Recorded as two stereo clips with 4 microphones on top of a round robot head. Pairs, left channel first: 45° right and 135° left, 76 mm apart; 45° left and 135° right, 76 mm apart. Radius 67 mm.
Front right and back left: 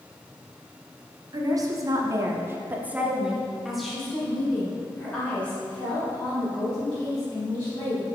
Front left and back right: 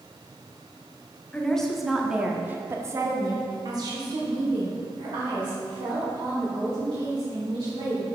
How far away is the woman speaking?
About 1.2 m.